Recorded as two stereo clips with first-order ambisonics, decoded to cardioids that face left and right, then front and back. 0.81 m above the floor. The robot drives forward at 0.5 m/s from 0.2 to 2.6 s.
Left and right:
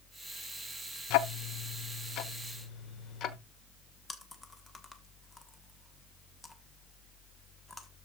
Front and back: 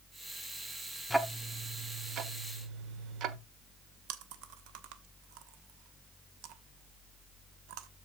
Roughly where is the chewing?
Behind.